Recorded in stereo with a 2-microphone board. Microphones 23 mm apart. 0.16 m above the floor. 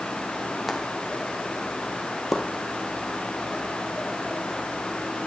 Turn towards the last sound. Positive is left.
turn(degrees=5)  # may be behind; listen again after turning